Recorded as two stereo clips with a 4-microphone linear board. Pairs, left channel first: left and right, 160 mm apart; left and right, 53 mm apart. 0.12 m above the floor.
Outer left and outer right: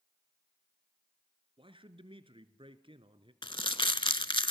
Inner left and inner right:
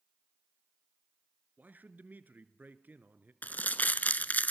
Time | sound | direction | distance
1.6 | a man speaking | 30° right (ahead or behind) | 1.4 m
3.4 | crumpling | 30° left (ahead or behind) | 0.5 m